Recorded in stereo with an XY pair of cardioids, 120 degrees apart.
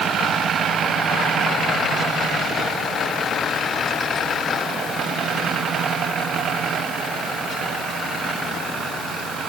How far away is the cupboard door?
I don't hear a cupboard door.